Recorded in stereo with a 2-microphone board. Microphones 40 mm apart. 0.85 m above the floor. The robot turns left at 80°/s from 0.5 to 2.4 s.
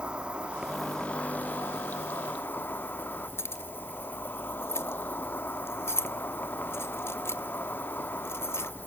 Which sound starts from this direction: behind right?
An insect, at 0.0 s.